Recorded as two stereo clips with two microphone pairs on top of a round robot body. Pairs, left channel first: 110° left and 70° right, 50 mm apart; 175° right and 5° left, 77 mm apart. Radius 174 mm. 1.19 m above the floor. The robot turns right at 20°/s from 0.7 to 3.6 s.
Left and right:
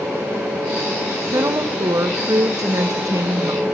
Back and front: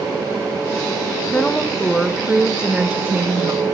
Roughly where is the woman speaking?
Right.